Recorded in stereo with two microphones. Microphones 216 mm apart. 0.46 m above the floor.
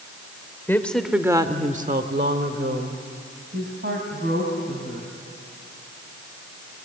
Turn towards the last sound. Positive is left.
turn(degrees=-55)  # may be behind; listen again after turning